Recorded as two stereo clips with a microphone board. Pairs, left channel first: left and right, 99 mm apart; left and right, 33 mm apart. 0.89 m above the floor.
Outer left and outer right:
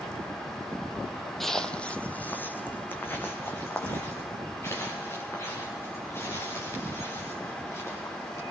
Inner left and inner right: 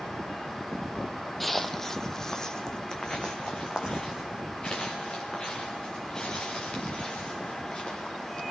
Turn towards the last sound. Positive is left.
turn(degrees=25)  # may be behind; listen again after turning